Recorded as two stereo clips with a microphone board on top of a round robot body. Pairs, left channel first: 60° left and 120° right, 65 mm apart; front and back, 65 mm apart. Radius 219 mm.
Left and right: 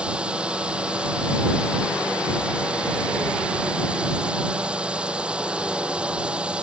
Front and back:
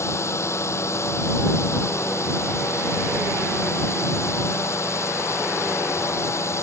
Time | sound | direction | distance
0.0 | a drone | 45° right | ?